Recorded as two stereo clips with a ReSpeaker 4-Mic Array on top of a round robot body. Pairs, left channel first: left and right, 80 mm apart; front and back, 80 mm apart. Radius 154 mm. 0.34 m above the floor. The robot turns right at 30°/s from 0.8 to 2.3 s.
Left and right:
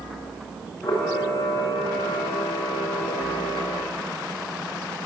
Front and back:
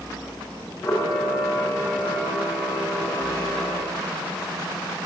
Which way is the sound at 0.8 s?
60° left.